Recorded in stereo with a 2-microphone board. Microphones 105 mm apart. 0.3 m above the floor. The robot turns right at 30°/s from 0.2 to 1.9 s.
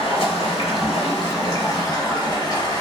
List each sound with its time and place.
0.0 s running water: 90° left, 1.1 m; by 2.8 s 140° left, 1.1 m